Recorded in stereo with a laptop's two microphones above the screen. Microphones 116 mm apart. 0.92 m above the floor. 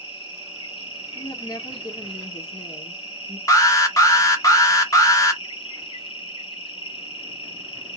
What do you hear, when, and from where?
0.0 s an insect: 45° left (ahead or behind), 1.9 m
1.1 s a woman speaking: 35° left (ahead or behind), 2 m
3.5 s an alarm: 30° left (ahead or behind), 1.5 m